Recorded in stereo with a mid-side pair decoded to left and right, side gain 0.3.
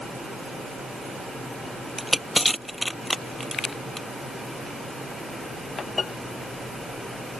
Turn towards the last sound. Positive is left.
turn(degrees=5)